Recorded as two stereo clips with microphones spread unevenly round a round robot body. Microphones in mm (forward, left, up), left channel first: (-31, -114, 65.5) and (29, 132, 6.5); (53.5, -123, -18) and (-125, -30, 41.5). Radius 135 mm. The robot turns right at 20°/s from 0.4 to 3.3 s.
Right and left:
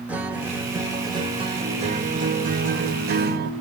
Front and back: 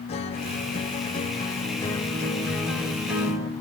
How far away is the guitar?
About 1.2 m.